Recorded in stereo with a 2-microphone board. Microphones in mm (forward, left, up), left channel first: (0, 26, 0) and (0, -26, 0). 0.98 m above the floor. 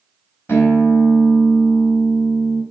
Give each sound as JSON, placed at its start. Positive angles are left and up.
{"t": 0.5, "sound": "a guitar", "side_deg": 55, "distance_m": 3.5}